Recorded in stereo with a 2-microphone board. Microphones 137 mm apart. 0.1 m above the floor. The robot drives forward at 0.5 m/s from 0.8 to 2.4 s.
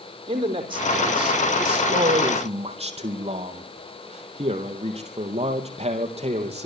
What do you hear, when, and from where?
0.3 s a man speaking: 35° right (ahead or behind), 4 m; by 6.7 s 45° right (ahead or behind), 3.5 m